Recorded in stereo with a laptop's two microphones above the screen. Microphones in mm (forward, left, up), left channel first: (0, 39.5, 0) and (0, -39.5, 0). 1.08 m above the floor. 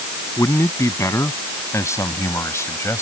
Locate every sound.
0.4 s a man speaking: 40° left (ahead or behind); by 3.0 s 35° left (ahead or behind)